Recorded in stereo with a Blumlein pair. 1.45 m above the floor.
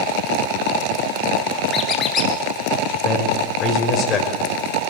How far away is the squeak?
About 4 m.